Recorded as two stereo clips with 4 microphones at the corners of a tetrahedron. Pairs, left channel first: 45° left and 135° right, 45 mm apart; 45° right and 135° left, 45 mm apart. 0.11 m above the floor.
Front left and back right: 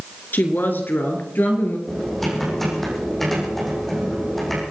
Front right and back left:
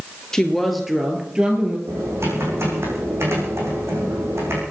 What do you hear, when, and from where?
0.3 s a woman speaking: 30° left, 2.5 m; by 1.8 s 75° left, 3 m
1.9 s typing on a keyboard: 130° left, 5.5 m